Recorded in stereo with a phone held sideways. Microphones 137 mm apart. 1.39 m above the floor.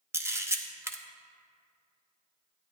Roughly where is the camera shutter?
Centre.